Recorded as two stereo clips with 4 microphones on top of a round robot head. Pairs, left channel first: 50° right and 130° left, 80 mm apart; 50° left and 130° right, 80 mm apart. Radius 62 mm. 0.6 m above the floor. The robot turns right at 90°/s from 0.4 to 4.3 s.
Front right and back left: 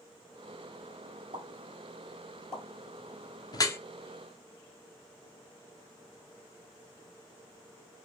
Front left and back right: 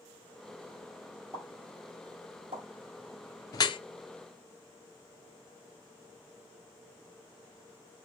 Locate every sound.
1.3 s a pop: 120° left, 1.6 m; by 2.6 s 120° right, 1.6 m
3.5 s dripping: 5° right, 0.5 m; by 3.8 s 20° left, 0.5 m